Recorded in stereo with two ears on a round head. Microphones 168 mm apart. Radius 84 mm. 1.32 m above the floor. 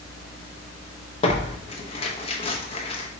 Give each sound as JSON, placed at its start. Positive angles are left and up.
{"t": 1.2, "sound": "tearing paper", "side_deg": 30, "distance_m": 0.7}